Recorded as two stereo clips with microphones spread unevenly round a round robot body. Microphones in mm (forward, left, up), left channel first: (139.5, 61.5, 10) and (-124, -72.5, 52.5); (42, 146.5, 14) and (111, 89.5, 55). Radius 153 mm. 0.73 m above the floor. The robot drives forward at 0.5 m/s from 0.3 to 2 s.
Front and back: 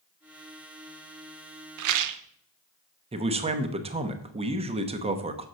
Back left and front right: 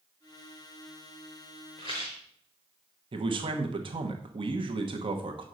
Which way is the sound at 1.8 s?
135° right.